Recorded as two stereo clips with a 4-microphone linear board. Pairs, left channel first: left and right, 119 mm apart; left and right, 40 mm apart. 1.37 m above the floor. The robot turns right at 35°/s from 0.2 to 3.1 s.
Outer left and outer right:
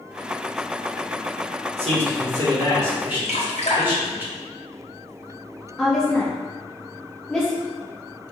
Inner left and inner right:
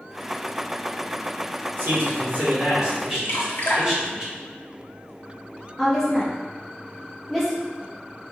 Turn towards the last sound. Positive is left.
turn(degrees=5)  # may be behind; listen again after turning